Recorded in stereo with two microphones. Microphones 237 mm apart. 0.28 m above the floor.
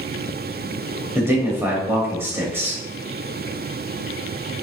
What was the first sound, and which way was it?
A man speaking, 10° right (ahead or behind).